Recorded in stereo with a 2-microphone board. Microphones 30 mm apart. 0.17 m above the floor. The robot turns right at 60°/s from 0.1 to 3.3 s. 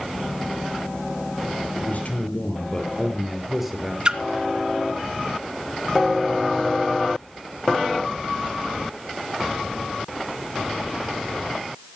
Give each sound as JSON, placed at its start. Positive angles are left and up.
{"t": 1.8, "sound": "a man speaking", "azimuth_deg": 90, "distance_m": 3.5}
{"t": 4.0, "sound": "a splash", "side_deg": -30, "distance_m": 1.4}